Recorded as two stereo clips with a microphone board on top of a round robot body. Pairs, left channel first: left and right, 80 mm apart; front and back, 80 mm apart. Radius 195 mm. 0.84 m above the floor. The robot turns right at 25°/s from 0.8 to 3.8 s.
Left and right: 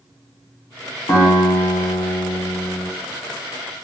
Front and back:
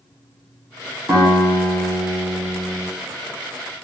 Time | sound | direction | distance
1.1 | a guitar | 130° left | 1.1 m